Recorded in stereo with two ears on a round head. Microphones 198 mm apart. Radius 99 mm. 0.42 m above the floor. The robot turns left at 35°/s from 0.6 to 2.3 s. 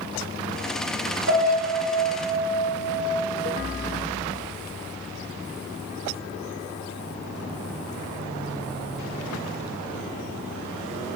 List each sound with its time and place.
1.3 s a piano: 80° right, 2 m; by 3.0 s 120° right, 2 m